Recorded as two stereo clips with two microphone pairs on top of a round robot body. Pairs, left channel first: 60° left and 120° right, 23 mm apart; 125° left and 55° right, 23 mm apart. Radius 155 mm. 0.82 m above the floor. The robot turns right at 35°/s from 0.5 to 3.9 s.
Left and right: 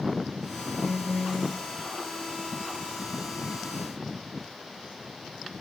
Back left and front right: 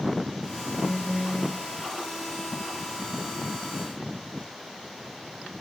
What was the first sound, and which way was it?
A phone buzzing, 105° right.